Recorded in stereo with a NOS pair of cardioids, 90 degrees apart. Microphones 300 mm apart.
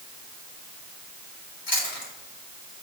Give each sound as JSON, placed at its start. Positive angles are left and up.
{"t": 1.7, "sound": "chewing", "azimuth_deg": 40, "distance_m": 4.0}